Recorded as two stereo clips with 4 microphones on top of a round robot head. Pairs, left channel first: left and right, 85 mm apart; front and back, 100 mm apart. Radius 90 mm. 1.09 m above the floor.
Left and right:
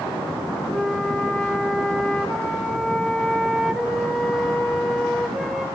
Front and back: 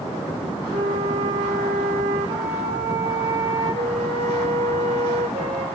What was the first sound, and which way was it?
A flute, 175° left.